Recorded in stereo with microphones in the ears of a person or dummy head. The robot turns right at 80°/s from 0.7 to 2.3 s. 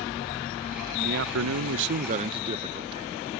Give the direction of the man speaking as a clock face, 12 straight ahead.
5 o'clock.